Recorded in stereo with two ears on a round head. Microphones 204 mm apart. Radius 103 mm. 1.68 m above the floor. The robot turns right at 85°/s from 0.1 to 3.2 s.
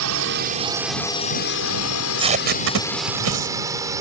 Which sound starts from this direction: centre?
Tape being pulled, at 1.9 s.